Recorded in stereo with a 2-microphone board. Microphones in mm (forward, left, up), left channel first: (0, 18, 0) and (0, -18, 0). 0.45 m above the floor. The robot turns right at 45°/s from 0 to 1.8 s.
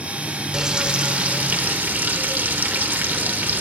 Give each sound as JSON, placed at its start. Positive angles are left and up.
{"t": 0.5, "sound": "frying", "azimuth_deg": -160, "distance_m": 0.5}